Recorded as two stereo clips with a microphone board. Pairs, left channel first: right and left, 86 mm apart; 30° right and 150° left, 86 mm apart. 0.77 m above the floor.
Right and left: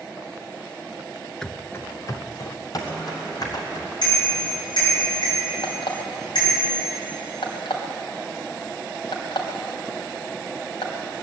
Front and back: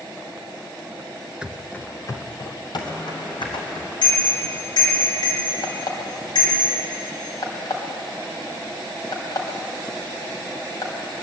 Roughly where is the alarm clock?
Right.